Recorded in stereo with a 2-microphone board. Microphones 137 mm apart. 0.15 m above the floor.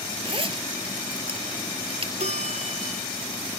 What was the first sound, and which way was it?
A zipper, 40° right (ahead or behind).